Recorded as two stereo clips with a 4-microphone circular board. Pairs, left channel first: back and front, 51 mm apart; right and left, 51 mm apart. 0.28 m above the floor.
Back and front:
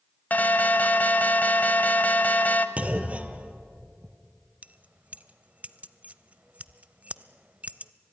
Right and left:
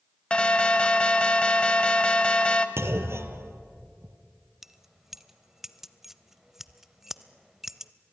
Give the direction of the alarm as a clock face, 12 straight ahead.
5 o'clock.